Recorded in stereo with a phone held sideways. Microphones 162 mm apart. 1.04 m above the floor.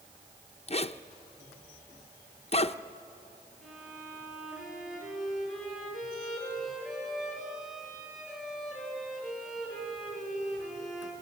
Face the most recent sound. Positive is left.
turn(degrees=-5)  # may be behind; listen again after turning